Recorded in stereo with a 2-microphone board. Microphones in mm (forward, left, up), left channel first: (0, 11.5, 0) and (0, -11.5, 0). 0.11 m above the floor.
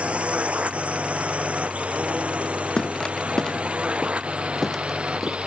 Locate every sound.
0.0 s a drone: 70° right (ahead or behind); by 5.5 s 60° right (ahead or behind)
2.8 s footsteps: 40° left (ahead or behind); by 5.4 s 5° left (ahead or behind)